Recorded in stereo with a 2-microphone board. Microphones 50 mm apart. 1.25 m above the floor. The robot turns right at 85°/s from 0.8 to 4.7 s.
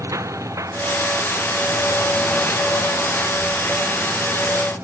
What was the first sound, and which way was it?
A lawn mower, 100° right.